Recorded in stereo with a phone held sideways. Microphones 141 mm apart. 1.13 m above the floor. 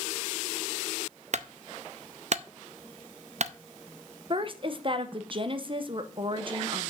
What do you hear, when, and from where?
1.3 s a clunk: 55° right (ahead or behind), 0.6 m
4.3 s a woman speaking: 40° right (ahead or behind), 1.0 m